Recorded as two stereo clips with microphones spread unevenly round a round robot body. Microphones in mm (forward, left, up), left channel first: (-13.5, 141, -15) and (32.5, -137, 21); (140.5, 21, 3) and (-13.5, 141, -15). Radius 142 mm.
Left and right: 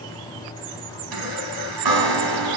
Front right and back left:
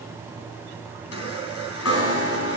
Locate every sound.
1.1 s a chime: 70° right, 3.5 m